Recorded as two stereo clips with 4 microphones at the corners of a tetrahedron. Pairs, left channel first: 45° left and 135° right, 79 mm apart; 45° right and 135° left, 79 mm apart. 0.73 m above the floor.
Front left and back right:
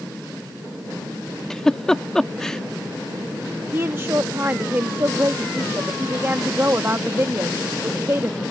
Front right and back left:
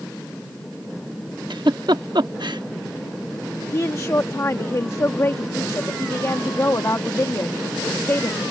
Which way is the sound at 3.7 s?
85° right.